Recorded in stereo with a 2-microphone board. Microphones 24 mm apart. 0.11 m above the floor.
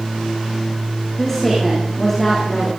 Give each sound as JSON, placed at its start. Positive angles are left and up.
{"t": 1.2, "sound": "a woman speaking", "side_deg": 5, "distance_m": 7.0}